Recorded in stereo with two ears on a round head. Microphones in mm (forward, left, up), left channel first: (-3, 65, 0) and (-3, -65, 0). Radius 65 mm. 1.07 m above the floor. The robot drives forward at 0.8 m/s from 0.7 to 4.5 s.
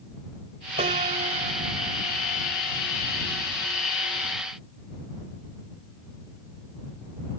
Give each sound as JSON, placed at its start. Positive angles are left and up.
{"t": 0.8, "sound": "a piano", "side_deg": -50}